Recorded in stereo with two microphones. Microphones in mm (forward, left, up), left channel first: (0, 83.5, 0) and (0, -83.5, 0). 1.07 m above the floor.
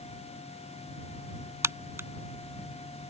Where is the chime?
I don't hear a chime.